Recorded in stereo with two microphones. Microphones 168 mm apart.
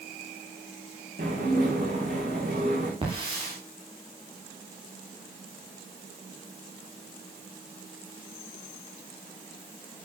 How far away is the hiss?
About 9.5 m.